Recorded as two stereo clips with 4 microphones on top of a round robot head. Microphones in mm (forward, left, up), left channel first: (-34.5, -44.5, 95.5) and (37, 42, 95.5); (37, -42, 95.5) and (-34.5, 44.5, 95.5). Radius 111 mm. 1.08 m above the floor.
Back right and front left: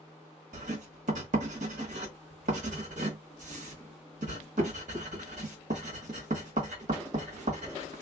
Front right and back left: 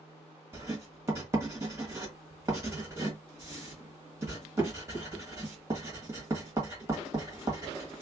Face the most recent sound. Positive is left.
turn(degrees=65)